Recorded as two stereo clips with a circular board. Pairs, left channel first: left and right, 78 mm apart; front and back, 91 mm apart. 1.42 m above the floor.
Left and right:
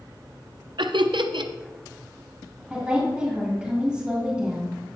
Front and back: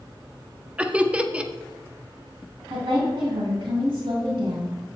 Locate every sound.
0.8 s laughter: 105° right, 0.5 m
2.7 s a woman speaking: 170° right, 2.5 m